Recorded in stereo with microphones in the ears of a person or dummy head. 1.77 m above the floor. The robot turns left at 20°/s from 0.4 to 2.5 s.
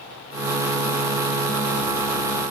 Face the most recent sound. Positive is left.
No sound to turn to.